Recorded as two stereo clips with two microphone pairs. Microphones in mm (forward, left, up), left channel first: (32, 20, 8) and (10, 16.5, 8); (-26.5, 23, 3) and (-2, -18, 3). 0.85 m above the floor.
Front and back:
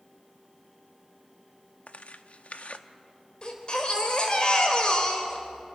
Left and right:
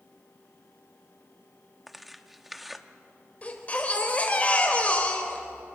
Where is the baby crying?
60° left, 3 m.